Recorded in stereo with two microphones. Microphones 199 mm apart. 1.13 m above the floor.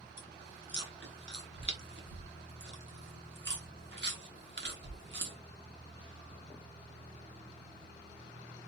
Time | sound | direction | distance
0.2 | chewing | 60° right (ahead or behind) | 0.9 m